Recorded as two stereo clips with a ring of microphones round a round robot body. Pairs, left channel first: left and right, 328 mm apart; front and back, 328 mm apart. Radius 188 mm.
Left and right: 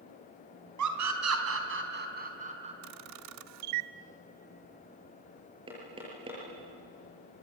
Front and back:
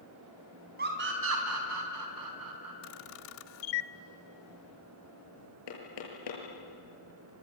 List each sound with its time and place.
0.8 s a scream: 115° right, 3.5 m; by 2.7 s 160° right, 4.5 m
2.8 s a camera shutter: 50° right, 0.5 m
5.7 s knocking: 15° right, 7 m